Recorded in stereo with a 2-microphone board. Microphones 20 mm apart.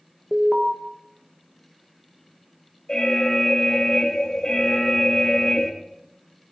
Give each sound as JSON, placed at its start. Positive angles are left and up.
{"t": 0.3, "sound": "an alarm", "side_deg": -30, "distance_m": 1.9}
{"t": 2.9, "sound": "an alarm", "side_deg": 40, "distance_m": 2.0}